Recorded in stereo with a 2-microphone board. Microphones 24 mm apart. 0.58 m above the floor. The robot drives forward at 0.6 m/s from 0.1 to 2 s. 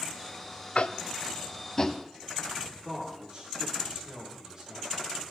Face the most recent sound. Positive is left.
turn(degrees=-25)  # may be behind; listen again after turning